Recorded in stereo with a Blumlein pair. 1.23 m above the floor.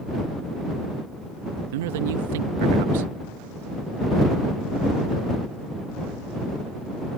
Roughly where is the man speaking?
Ahead right.